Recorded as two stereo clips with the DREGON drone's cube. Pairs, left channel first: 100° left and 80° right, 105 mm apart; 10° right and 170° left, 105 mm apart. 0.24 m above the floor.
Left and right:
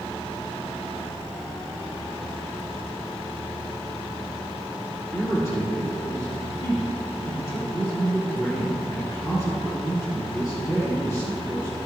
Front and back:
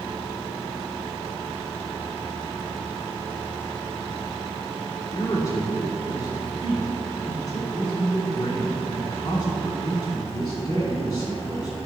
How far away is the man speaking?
About 3 m.